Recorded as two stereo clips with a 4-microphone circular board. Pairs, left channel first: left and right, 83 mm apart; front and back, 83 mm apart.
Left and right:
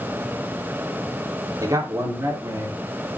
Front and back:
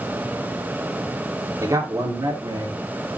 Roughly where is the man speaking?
Behind right.